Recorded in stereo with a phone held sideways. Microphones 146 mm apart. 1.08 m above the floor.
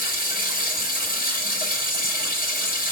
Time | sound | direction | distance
0.0 | running water | 80° left | 4.5 m